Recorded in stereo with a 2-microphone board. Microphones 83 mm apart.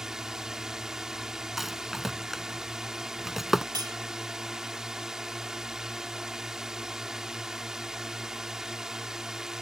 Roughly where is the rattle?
Centre.